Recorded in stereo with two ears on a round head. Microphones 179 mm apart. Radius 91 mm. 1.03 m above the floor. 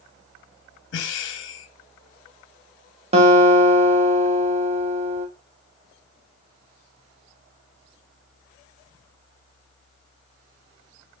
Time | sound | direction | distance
0.9 | breathing | 65° left (ahead or behind) | 0.7 m
3.1 | a guitar | 30° right (ahead or behind) | 0.8 m